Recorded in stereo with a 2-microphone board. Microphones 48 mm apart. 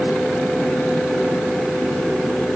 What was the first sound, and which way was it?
Only background noise.